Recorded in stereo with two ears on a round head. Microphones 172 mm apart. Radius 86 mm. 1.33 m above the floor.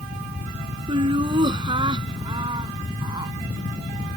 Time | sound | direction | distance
0.9 | laughter | 25° right (ahead or behind) | ?